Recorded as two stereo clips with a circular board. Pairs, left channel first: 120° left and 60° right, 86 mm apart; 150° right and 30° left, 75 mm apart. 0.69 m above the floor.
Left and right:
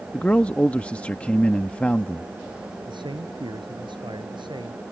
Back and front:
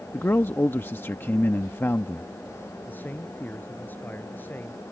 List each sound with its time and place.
0.1 s a man speaking: 175° right
2.9 s a man speaking: 85° right